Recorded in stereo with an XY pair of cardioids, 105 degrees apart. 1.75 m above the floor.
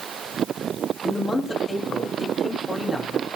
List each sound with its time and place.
1.0 s a man speaking: 25° left, 4 m